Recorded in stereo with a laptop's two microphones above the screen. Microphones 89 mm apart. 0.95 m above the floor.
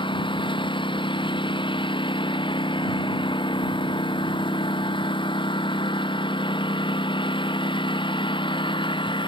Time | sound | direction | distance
0.0 | a lawn mower | 65° left (ahead or behind) | ?